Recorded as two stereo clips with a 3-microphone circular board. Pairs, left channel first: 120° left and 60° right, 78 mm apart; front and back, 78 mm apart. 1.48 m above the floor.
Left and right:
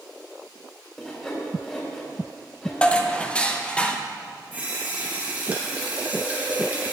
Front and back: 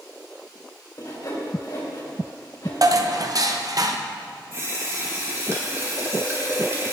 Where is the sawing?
40° left, 3.5 m.